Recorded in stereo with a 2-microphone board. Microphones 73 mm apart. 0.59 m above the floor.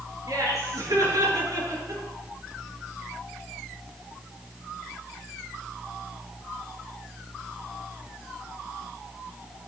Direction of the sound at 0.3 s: 55° right (ahead or behind).